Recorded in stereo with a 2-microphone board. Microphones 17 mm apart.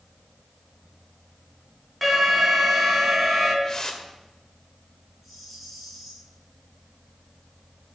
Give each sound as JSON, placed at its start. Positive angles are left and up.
{"t": 2.0, "sound": "an alarm", "side_deg": -5, "distance_m": 3.0}
{"t": 3.6, "sound": "a whoosh", "side_deg": 35, "distance_m": 1.9}
{"t": 5.2, "sound": "a rattle", "side_deg": 0, "distance_m": 5.5}